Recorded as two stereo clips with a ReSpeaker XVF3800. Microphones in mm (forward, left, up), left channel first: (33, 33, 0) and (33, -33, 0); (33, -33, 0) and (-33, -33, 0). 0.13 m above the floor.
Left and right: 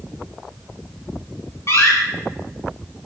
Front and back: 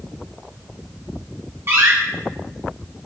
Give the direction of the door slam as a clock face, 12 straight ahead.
8 o'clock.